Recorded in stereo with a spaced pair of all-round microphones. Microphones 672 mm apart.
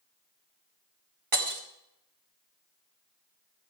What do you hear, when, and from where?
1.3 s breaking glass: 50° right (ahead or behind), 2.5 m